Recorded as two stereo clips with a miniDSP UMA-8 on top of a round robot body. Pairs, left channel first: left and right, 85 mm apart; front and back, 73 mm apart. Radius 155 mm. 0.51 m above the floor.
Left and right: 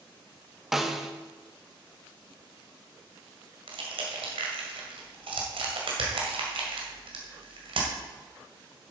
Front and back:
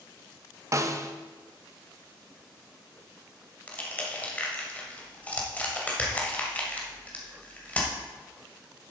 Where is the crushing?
70° right, 2 m.